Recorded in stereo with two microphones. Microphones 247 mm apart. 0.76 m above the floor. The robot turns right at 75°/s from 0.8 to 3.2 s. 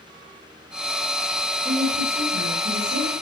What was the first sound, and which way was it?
A woman speaking, 170° right.